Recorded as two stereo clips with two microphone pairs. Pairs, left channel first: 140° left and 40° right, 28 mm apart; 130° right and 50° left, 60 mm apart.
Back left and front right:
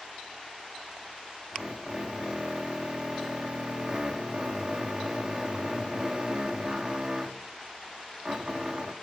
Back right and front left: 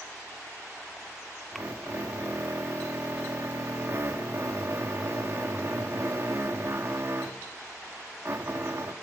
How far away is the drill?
About 1.8 m.